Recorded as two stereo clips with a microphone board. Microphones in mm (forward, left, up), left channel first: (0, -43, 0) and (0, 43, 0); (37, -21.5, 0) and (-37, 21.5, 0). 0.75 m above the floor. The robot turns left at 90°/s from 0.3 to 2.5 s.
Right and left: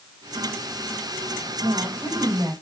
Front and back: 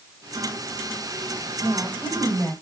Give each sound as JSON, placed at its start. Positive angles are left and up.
{"t": 1.6, "sound": "a woman speaking", "azimuth_deg": 120, "distance_m": 3.5}